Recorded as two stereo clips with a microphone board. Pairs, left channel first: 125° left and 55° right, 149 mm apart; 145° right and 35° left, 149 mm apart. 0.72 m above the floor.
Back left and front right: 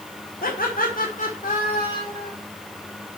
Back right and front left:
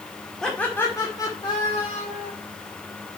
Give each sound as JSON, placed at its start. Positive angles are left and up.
{"t": 0.4, "sound": "laughter", "azimuth_deg": 130, "distance_m": 1.7}